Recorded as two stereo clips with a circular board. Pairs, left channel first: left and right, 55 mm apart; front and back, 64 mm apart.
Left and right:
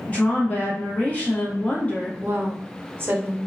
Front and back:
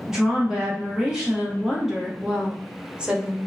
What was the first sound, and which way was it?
A woman speaking, 110° left.